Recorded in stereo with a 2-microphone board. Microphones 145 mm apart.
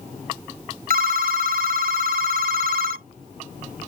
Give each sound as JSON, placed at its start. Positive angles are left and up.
{"t": 0.9, "sound": "a phone ringing", "side_deg": -80}